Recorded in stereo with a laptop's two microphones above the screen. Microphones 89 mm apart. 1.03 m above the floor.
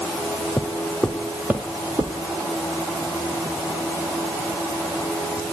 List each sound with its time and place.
0.6 s footsteps: 15° left (ahead or behind), 1.7 m; by 2.1 s 40° right (ahead or behind), 1.9 m